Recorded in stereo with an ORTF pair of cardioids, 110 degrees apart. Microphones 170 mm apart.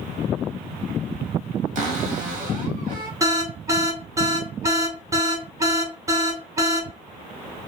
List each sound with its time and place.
1.8 s a cupboard door: 55° right, 1.1 m
3.2 s an alarm: 20° right, 0.8 m